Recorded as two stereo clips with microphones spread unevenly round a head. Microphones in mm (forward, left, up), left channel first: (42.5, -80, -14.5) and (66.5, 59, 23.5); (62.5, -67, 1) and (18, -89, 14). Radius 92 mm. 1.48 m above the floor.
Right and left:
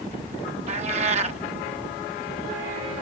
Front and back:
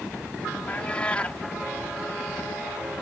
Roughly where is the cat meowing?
Behind left.